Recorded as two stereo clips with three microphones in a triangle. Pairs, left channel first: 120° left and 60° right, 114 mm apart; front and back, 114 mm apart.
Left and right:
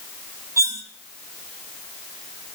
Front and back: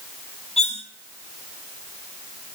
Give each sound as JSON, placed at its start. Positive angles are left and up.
{"t": 0.6, "sound": "cutlery clinking", "azimuth_deg": 5, "distance_m": 1.8}